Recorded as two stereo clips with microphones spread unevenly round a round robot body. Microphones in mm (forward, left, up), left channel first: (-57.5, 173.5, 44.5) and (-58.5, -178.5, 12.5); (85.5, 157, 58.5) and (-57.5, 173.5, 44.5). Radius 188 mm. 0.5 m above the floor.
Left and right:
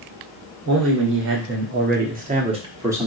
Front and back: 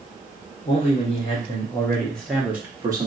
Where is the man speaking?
50° right, 1.4 m; by 3.1 s 165° right, 1.0 m.